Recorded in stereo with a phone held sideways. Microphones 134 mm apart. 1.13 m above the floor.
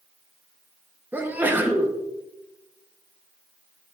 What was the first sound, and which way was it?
A sneeze, 15° right (ahead or behind).